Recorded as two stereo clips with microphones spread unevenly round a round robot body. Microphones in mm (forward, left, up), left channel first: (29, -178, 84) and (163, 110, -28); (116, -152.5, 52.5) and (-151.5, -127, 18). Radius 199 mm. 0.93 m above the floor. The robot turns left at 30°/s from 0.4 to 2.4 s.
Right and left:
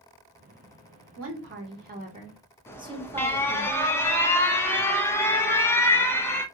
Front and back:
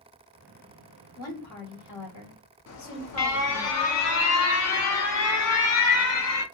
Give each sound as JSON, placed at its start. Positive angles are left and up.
{"t": 1.2, "sound": "a woman speaking", "azimuth_deg": 35, "distance_m": 1.3}
{"t": 2.7, "sound": "an alarm", "azimuth_deg": -20, "distance_m": 0.7}